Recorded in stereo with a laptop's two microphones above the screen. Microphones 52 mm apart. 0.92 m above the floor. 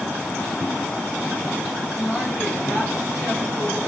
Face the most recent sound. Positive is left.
turn(degrees=0)  # may be behind; listen again after turning